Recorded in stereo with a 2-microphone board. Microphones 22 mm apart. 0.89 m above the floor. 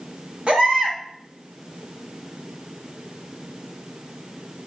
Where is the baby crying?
65° right (ahead or behind), 1.9 m.